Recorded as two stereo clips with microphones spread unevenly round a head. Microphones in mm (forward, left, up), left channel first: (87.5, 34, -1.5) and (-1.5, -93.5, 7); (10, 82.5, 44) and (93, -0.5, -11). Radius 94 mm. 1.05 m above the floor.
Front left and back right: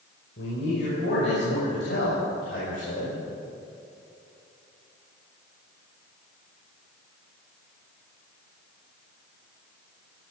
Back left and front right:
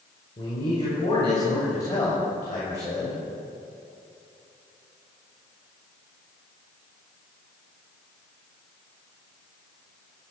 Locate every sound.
0.4 s a man speaking: 80° left, 5.5 m; by 3.2 s 65° left, 7 m